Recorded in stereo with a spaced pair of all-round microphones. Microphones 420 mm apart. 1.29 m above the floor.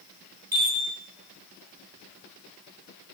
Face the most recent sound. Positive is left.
turn(degrees=-60)  # may be behind; listen again after turning